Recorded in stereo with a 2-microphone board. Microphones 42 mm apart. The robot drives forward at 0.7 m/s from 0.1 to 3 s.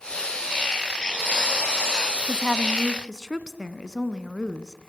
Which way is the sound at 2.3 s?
10° right (ahead or behind).